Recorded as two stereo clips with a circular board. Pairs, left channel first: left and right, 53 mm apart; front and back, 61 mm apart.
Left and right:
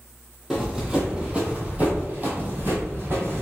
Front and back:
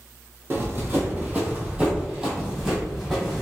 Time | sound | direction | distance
0.5 | running footsteps | 165° right | 1.6 m